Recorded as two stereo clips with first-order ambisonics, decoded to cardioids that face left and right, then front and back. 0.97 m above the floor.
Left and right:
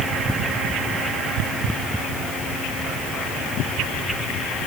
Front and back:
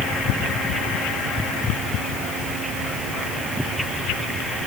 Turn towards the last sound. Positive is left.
No sound to turn to.